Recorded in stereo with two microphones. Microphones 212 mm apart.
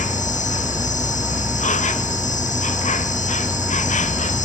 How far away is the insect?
About 1.1 m.